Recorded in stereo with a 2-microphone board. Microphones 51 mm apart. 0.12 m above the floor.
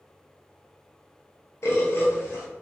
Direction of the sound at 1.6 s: 60° left (ahead or behind).